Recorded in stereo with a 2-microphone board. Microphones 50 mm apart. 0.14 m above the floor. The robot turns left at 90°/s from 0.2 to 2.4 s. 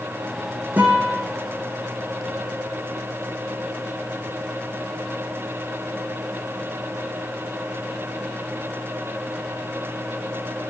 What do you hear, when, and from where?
0.8 s a guitar: 145° right, 4.5 m; by 1.2 s 170° left, 4.5 m